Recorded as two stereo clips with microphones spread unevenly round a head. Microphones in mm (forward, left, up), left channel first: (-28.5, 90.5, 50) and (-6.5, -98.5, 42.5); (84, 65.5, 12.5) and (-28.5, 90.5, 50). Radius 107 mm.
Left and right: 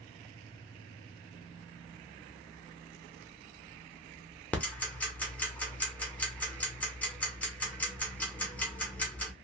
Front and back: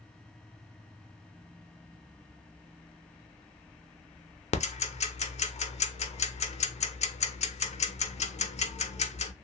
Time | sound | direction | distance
4.5 | ticking | 15° left | 0.7 m